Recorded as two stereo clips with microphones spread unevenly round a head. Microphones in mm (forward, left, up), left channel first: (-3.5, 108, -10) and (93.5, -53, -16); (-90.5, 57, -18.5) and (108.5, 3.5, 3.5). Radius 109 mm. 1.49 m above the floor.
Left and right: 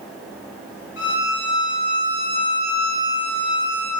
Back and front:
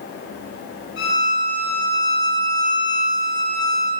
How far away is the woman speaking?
No woman speaking in this recording.